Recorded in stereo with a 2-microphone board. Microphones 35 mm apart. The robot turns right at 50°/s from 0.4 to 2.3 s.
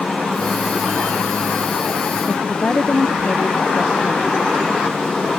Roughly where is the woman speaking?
Left.